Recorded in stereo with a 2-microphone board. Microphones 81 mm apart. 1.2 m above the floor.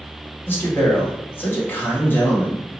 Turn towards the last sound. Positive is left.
turn(degrees=25)  # may be behind; listen again after turning